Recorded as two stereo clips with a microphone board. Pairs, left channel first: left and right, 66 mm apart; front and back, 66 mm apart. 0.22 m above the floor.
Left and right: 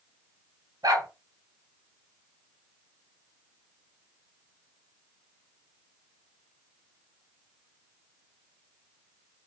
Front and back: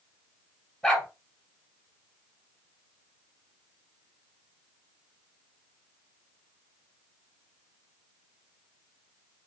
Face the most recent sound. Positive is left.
turn(degrees=-80)